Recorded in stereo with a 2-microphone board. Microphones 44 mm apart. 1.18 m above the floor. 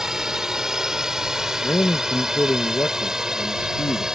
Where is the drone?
10° right (ahead or behind).